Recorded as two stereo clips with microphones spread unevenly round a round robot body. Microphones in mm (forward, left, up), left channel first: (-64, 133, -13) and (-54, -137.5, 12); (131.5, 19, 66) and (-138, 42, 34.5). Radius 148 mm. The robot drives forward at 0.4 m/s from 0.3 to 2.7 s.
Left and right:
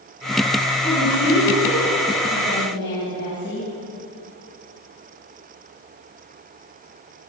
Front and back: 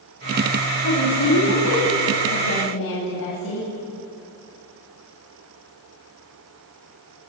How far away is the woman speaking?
About 6 m.